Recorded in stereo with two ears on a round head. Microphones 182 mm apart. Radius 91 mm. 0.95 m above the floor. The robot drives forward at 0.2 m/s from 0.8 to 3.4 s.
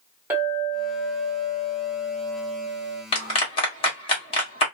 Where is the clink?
10° right (ahead or behind), 1.4 m; by 3.0 s 5° right (ahead or behind), 1.8 m.